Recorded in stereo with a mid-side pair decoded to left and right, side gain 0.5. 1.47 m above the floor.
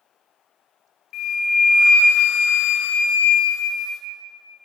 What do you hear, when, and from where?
1.1 s a flute: 70° left, 0.6 m